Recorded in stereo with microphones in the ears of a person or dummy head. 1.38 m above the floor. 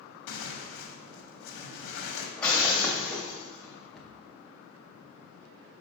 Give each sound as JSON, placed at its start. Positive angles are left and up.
{"t": 0.3, "sound": "tearing paper", "side_deg": 65, "distance_m": 1.0}
{"t": 2.4, "sound": "breaking glass", "side_deg": 5, "distance_m": 1.2}
{"t": 3.9, "sound": "a cupboard door", "side_deg": 0, "distance_m": 0.8}